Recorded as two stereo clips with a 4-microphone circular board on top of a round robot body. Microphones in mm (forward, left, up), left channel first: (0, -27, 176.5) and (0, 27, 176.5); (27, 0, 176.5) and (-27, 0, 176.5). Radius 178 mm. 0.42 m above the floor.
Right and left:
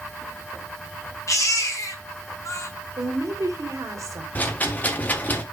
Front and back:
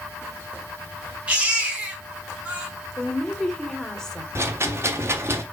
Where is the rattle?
145° right, 1.7 m.